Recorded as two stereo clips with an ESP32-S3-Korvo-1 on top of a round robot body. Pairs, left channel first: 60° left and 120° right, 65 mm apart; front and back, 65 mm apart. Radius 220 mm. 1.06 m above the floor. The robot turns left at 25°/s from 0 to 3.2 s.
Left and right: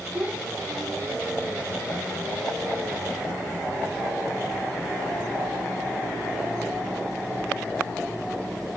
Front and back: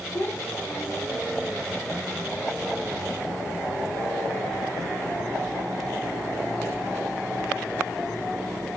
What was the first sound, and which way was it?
A child speaking, 50° right.